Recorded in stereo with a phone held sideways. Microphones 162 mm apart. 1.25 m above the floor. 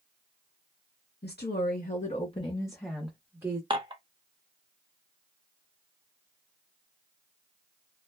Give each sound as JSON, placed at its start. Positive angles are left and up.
{"t": 1.2, "sound": "a woman speaking", "side_deg": 75, "distance_m": 1.0}
{"t": 3.7, "sound": "dishes clattering", "side_deg": -30, "distance_m": 0.7}